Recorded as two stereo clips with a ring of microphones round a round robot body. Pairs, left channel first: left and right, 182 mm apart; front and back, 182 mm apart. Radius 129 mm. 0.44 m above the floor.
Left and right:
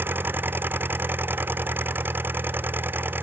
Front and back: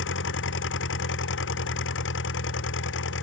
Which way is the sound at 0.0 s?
10° right.